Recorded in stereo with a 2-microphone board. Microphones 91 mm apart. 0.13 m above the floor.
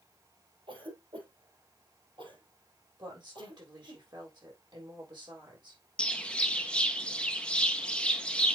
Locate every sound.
0.7 s a cough: 65° right (ahead or behind), 4.5 m
3.0 s a woman speaking: 55° right (ahead or behind), 5.5 m
6.0 s a bird: 10° left (ahead or behind), 0.7 m